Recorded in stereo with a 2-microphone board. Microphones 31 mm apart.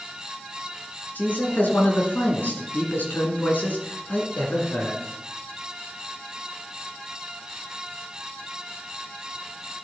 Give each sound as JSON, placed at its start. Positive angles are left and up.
{"t": 1.1, "sound": "a man speaking", "side_deg": 70, "distance_m": 3.0}